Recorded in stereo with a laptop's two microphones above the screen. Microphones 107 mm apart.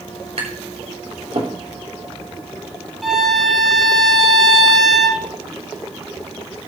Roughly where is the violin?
Centre.